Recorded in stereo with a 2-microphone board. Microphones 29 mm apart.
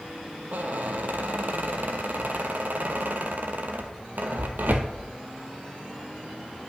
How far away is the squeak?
About 0.8 m.